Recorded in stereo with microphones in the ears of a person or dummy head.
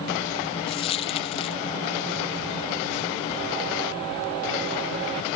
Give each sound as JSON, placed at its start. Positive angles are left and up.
{"t": 0.7, "sound": "a dropped coin", "side_deg": 20}